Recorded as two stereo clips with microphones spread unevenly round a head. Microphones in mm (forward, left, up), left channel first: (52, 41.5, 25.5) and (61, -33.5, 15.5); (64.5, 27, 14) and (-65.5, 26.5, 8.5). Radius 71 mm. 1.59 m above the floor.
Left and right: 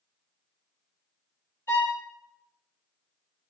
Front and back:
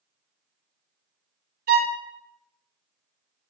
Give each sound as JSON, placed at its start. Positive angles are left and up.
{"t": 1.7, "sound": "a violin", "azimuth_deg": 170, "distance_m": 0.6}